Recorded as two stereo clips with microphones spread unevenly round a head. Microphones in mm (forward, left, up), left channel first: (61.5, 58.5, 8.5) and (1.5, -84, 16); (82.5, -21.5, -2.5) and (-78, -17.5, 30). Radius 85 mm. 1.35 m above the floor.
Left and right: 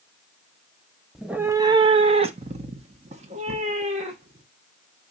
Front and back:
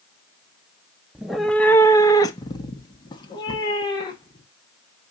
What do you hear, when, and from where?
1.1 s a cat meowing: 165° left, 0.6 m; by 4.5 s 65° right, 2.5 m